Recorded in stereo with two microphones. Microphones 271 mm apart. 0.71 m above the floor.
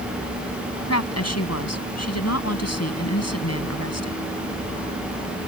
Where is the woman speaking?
70° left (ahead or behind).